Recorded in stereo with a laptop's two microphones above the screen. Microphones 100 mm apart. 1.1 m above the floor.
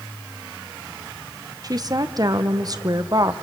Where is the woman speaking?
40° right (ahead or behind), 0.7 m.